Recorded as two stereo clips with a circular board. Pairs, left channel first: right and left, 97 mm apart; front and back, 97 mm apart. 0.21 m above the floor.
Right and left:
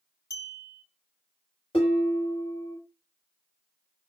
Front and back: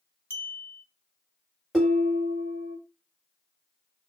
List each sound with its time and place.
0.3 s a clink: 60° right, 0.7 m
1.7 s dishes clattering: 90° right, 1.7 m